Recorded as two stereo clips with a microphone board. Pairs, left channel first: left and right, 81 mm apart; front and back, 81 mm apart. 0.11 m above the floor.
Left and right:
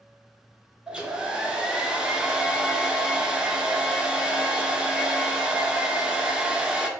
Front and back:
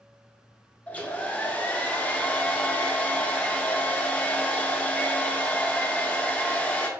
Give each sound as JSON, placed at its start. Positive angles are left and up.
{"t": 0.9, "sound": "a hair dryer", "azimuth_deg": -30, "distance_m": 0.5}